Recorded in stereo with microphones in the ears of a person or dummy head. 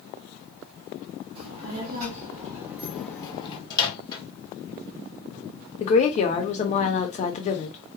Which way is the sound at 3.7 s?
25° left (ahead or behind).